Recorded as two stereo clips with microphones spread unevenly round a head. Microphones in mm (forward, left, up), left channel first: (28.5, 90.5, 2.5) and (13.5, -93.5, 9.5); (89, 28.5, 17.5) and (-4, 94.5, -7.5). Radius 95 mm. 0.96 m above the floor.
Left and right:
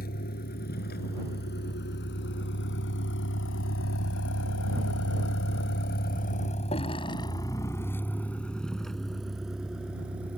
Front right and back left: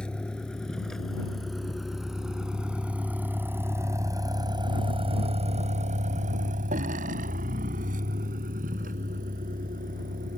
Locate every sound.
0.0 s a vehicle: 45° left; by 10.4 s straight behind